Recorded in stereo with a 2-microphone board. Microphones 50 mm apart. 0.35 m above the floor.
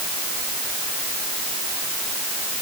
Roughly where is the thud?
No thud in this recording.